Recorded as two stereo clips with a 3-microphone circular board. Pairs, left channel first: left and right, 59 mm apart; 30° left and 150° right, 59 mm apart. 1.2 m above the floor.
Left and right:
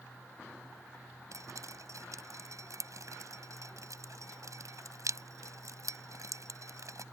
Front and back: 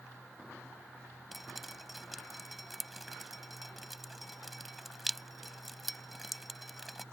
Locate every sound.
1.3 s dripping: 60° right